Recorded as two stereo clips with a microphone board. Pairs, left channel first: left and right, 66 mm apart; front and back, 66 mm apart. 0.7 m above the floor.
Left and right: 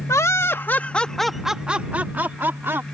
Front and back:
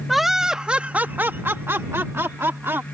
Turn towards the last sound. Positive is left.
turn(degrees=-135)